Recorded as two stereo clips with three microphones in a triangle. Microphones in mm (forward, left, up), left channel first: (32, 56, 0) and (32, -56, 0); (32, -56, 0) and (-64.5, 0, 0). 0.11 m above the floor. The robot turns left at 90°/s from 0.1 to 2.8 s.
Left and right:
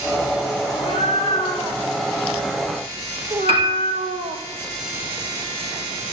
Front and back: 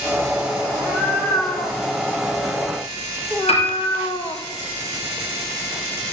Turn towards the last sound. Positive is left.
turn(degrees=-55)